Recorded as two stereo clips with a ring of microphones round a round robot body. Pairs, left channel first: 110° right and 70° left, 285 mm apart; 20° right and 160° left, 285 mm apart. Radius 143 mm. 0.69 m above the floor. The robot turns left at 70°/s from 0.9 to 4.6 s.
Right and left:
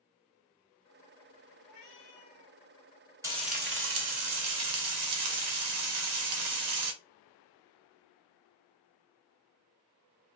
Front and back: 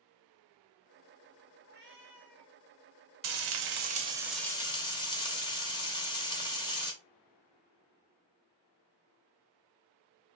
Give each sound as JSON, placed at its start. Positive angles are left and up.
{"t": 1.6, "sound": "a cat meowing", "azimuth_deg": -135, "distance_m": 1.2}
{"t": 3.2, "sound": "frying", "azimuth_deg": 145, "distance_m": 0.7}